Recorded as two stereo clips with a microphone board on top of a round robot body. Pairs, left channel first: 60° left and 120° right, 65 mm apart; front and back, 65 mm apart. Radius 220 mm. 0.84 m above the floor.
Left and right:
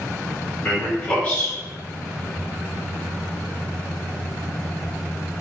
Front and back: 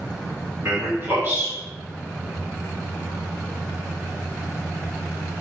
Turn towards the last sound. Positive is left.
turn(degrees=125)